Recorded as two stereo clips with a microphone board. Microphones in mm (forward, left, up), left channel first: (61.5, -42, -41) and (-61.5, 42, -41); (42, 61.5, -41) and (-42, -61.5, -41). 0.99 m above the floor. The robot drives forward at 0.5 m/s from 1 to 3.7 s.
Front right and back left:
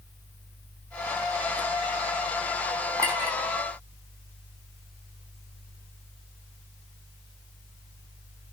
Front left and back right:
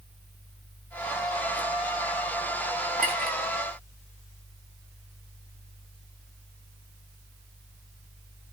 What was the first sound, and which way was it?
A clink, 145° right.